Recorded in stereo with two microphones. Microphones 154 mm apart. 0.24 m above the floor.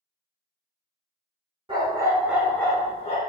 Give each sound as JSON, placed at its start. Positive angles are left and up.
{"t": 1.7, "sound": "a dog barking", "side_deg": -35, "distance_m": 0.9}